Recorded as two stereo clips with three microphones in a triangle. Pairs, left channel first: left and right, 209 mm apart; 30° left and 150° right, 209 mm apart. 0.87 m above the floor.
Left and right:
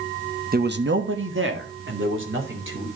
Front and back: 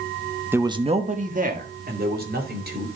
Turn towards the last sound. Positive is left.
turn(degrees=-110)